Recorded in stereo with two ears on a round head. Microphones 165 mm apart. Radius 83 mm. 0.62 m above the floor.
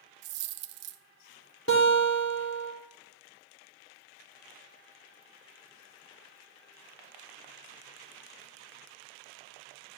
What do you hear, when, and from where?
0.2 s a dropped coin: 65° right (ahead or behind), 0.6 m
1.7 s a guitar: 80° left, 2.5 m